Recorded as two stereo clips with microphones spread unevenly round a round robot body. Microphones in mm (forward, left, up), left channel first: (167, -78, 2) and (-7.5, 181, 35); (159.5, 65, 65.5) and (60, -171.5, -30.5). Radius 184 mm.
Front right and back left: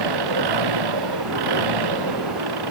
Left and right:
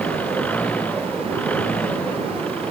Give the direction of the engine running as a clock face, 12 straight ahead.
7 o'clock.